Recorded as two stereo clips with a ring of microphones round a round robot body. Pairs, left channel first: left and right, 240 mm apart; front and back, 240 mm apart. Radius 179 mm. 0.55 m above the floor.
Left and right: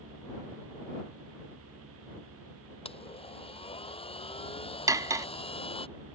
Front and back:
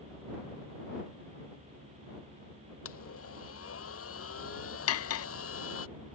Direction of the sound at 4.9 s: 10° right.